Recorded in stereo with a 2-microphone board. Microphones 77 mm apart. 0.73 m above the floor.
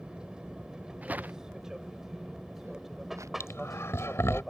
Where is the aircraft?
10° right (ahead or behind); by 4.5 s centre (ahead or behind).